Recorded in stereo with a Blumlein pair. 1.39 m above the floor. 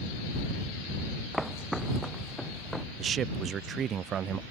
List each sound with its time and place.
1.3 s footsteps: straight ahead
3.0 s a man speaking: 25° right